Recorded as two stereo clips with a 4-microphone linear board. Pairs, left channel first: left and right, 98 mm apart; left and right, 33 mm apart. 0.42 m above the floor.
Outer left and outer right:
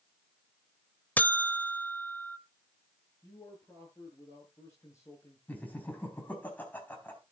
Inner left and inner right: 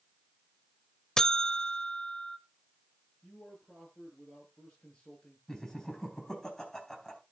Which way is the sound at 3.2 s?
30° left (ahead or behind).